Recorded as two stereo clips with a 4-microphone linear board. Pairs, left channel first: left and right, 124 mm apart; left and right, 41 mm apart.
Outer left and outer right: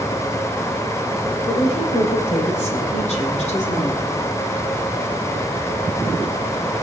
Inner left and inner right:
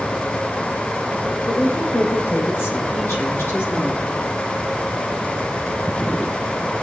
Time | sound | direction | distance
1.5 | a woman speaking | 60° left (ahead or behind) | 4.5 m